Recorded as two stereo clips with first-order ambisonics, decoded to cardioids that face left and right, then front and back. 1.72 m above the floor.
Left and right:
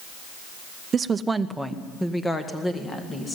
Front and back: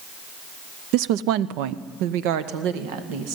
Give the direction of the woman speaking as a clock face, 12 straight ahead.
5 o'clock.